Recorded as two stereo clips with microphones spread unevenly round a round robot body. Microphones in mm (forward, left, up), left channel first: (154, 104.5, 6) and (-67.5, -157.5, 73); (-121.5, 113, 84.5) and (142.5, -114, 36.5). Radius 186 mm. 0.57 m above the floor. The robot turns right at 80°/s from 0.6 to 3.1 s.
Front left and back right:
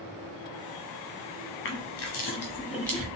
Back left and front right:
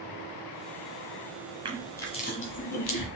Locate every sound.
1.6 s crushing: 25° left, 1.1 m; by 3.1 s 135° left, 1.1 m